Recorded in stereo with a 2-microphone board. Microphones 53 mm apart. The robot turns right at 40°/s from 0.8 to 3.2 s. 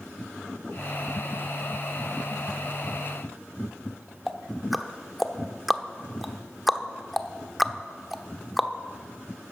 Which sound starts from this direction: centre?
Ticking, at 4.3 s.